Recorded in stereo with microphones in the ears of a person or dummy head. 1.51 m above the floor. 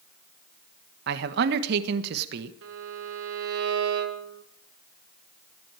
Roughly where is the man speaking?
Right.